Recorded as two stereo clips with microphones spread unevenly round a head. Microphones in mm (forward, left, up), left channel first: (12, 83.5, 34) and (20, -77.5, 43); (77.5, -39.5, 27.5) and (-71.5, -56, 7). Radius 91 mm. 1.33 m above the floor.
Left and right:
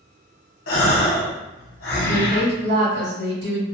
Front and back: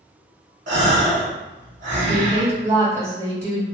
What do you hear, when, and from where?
0.7 s a gasp: 130° left, 0.8 m
2.1 s a woman speaking: 100° right, 1.8 m